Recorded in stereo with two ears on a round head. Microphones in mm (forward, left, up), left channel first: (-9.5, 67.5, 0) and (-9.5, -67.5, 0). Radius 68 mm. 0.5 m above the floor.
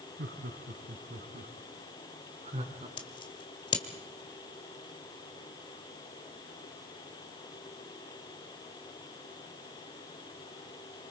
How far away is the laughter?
About 5 m.